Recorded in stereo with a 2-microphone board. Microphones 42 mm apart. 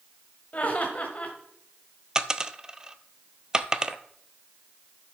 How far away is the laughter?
About 1.3 m.